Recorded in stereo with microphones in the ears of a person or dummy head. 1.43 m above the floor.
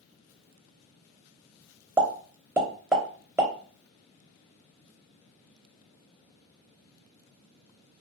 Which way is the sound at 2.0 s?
5° right (ahead or behind).